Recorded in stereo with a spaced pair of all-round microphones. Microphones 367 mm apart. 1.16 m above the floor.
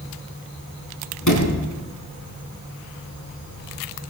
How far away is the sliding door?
About 4.5 m.